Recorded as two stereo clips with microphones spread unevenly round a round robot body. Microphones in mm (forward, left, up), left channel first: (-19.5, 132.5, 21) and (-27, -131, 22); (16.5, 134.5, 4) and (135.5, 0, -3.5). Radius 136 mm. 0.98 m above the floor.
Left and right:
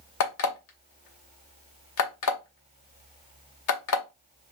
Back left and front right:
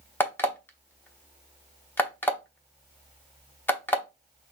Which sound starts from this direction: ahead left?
An alarm clock, at 0.2 s.